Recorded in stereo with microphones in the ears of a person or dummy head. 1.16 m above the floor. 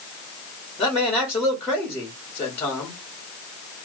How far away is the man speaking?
About 1.4 m.